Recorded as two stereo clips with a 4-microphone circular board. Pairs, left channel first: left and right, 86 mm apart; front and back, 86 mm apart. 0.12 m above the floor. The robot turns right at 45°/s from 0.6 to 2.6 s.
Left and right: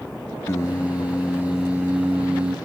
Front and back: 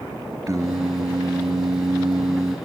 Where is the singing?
140° left, 1.4 m; by 2.6 s 135° right, 1.4 m.